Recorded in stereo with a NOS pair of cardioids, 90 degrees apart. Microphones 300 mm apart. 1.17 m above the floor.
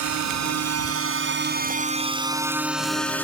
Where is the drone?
70° right; by 3.2 s 5° left.